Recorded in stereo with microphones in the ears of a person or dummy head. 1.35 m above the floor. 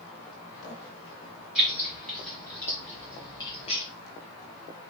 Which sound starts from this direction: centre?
Keys jangling, at 1.6 s.